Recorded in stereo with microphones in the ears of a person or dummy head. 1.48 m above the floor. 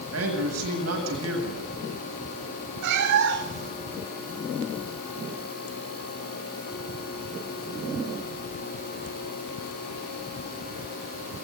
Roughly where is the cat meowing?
Right.